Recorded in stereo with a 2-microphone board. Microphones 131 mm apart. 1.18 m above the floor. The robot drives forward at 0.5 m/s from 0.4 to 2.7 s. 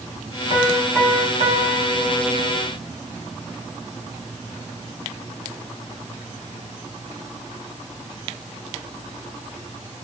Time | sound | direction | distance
0.5 | a piano | 20° right (ahead or behind) | 3 m